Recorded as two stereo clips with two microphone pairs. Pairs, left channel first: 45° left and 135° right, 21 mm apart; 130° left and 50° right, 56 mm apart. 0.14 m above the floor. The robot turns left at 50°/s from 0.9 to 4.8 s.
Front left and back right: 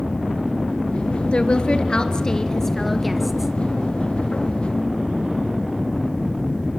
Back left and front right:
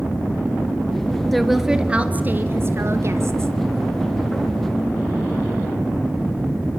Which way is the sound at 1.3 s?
45° left.